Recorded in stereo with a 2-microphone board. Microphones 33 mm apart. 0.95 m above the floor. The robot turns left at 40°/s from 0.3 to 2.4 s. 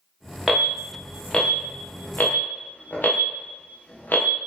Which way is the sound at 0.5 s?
15° right (ahead or behind).